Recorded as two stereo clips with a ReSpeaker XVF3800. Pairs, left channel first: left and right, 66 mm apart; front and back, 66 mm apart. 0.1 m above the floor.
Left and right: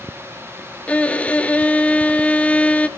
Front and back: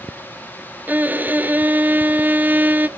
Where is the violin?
145° left, 0.7 m.